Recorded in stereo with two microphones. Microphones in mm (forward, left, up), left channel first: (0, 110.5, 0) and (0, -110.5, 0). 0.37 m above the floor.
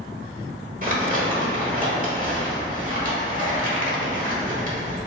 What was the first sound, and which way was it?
Crumpling, 40° right (ahead or behind).